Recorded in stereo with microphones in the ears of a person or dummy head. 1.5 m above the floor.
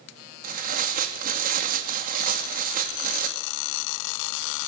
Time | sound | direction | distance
0.4 | tearing paper | 50° right (ahead or behind) | 2 m